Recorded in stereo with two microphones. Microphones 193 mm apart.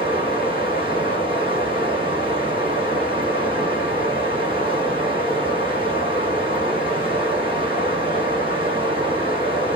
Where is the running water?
25° right (ahead or behind), 1.9 m.